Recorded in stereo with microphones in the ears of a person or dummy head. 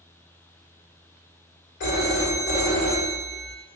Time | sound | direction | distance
1.8 | a phone ringing | 55° left (ahead or behind) | 1.4 m